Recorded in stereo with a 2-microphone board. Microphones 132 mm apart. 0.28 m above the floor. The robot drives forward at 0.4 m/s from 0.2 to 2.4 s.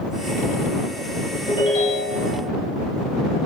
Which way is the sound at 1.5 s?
50° left (ahead or behind).